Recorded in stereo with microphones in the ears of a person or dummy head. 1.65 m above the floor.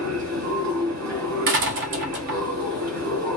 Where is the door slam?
55° right (ahead or behind), 0.9 m.